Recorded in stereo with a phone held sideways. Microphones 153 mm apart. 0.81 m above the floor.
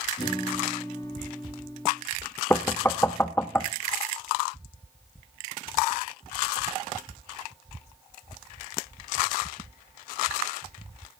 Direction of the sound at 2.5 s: 15° left (ahead or behind).